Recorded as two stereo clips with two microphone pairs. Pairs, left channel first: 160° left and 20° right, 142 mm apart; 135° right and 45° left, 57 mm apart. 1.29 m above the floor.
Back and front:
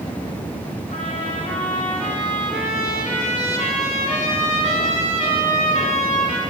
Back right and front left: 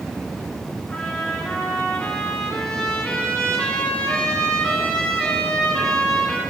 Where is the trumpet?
150° left, 2 m.